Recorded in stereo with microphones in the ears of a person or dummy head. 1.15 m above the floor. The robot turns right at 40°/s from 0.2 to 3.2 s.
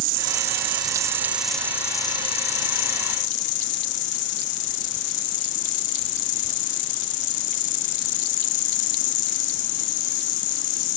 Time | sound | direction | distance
0.0 | an insect | 50° right | ?